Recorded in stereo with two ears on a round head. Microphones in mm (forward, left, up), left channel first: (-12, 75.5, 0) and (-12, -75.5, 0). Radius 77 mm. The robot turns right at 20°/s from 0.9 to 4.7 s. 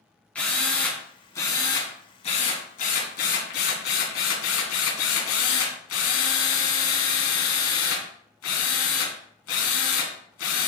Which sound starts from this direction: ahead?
A drill, at 0.3 s.